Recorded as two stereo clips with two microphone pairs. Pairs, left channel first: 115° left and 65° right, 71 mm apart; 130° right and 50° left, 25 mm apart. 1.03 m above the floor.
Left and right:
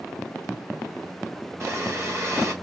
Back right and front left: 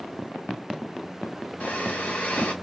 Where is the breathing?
115° right, 1.1 m.